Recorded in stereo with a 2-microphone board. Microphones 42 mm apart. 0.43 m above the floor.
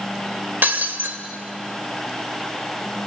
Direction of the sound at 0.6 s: 50° right (ahead or behind).